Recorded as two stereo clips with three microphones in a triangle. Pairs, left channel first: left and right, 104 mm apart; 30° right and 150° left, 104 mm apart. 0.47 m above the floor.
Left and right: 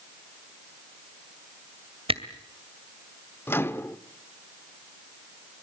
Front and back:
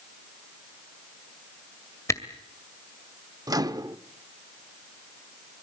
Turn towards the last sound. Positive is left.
turn(degrees=145)